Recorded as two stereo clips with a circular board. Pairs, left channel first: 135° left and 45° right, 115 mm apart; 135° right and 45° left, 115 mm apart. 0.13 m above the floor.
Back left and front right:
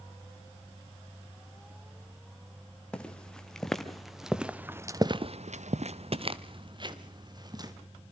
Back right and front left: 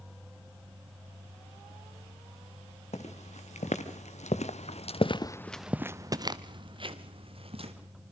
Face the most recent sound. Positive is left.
turn(degrees=10)